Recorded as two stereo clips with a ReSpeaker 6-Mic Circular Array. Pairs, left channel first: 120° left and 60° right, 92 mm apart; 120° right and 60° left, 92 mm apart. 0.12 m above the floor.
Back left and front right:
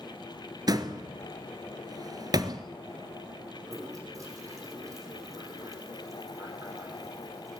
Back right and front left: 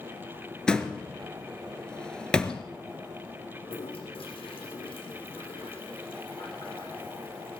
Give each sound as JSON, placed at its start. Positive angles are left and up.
{"t": 0.7, "sound": "a door slam", "azimuth_deg": -40, "distance_m": 1.6}
{"t": 3.6, "sound": "a toilet flushing", "azimuth_deg": -110, "distance_m": 7.0}